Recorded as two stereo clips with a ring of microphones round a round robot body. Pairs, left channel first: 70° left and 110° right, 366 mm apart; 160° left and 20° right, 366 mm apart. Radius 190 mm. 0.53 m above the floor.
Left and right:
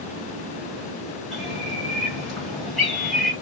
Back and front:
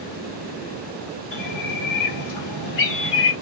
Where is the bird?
160° left, 1.5 m.